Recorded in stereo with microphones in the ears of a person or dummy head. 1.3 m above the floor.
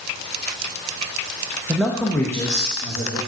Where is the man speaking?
10° right (ahead or behind), 0.7 m; by 3.2 s 30° left (ahead or behind), 1.7 m.